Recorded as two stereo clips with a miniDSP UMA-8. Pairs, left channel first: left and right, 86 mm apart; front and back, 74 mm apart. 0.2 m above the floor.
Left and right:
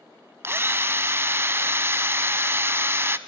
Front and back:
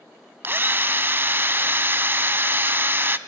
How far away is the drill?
About 0.5 m.